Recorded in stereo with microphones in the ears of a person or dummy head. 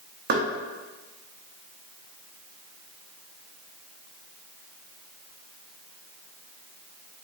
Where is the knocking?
55° right (ahead or behind), 0.8 m.